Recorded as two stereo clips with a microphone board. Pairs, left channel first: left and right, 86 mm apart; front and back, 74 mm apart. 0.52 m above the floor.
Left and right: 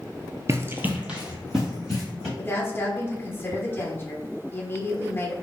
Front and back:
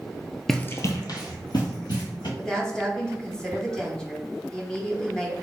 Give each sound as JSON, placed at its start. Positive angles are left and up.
{"t": 0.5, "sound": "running footsteps", "azimuth_deg": -85, "distance_m": 0.5}
{"t": 2.4, "sound": "a woman speaking", "azimuth_deg": 65, "distance_m": 0.9}